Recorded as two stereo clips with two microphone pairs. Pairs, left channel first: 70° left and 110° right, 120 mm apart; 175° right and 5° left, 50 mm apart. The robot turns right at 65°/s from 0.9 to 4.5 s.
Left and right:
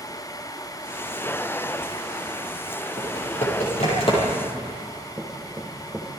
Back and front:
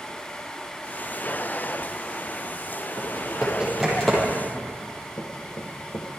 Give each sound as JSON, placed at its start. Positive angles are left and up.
{"t": 3.0, "sound": "typing on a keyboard", "azimuth_deg": 35, "distance_m": 9.0}
{"t": 5.2, "sound": "knocking", "azimuth_deg": 170, "distance_m": 4.5}